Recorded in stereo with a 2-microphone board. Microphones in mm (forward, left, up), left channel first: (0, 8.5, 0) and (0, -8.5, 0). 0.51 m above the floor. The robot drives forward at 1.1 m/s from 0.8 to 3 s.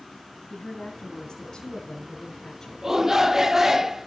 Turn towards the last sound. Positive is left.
turn(degrees=-25)  # may be behind; listen again after turning